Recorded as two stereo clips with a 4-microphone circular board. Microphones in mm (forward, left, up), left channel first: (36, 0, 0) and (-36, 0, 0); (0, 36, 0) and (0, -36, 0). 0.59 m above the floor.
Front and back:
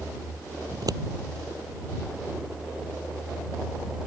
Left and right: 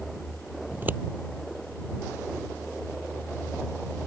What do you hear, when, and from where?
0.7 s scissors: 155° right